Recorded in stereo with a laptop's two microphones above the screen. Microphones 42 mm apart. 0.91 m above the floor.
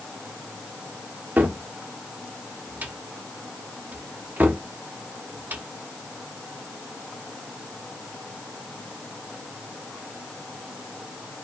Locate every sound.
1.4 s a cupboard door: 50° right (ahead or behind), 0.7 m